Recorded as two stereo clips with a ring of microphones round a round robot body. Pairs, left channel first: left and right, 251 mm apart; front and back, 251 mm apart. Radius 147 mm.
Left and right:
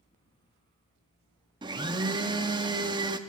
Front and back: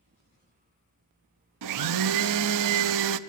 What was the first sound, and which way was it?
A blender, 165° right.